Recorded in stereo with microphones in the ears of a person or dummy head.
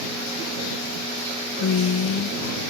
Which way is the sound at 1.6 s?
70° left (ahead or behind).